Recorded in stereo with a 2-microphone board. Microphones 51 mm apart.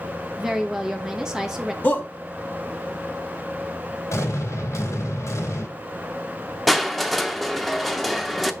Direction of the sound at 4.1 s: 65° left (ahead or behind).